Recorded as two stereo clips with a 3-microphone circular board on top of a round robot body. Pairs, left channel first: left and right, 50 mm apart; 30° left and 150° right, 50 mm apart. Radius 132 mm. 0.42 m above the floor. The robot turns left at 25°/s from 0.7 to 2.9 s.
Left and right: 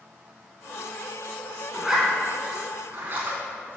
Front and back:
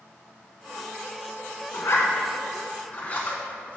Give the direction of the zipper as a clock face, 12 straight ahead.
12 o'clock.